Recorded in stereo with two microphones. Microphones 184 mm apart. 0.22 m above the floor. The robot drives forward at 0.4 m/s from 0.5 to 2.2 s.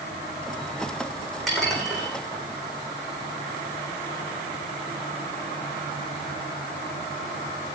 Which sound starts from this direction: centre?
Dishes clattering, at 1.5 s.